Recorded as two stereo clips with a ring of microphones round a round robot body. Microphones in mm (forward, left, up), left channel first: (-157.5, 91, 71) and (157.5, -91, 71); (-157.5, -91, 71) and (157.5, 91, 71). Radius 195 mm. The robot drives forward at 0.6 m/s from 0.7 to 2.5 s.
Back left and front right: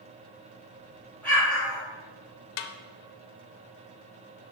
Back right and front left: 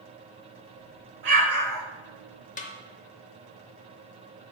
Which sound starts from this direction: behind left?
A snare drum, at 2.6 s.